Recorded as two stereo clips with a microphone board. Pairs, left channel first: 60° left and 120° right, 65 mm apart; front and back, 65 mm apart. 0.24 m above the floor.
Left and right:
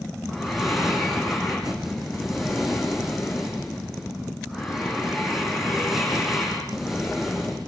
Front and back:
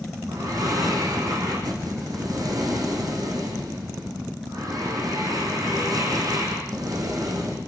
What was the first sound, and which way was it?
Breathing, 155° left.